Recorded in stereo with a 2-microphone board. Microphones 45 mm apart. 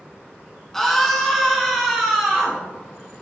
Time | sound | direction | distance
0.7 | a scream | 10° left (ahead or behind) | 2 m